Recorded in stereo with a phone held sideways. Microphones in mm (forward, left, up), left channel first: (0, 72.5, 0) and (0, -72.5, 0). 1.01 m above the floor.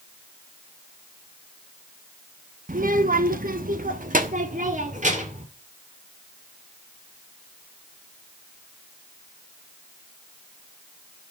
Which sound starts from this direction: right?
A child speaking, at 2.7 s.